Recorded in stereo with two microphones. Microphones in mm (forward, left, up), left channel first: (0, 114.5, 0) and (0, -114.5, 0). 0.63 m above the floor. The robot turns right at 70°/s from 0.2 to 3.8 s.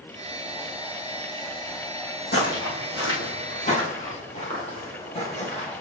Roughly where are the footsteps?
Left.